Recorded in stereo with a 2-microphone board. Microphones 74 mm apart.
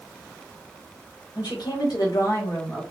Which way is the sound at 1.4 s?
80° left.